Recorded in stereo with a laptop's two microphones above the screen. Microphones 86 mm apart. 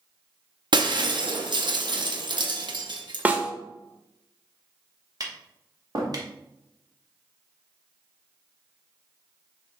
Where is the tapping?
45° right (ahead or behind), 0.9 m.